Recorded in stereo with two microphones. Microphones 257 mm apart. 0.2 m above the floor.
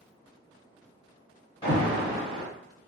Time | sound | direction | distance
1.6 | an alarm | 20° left (ahead or behind) | 1.4 m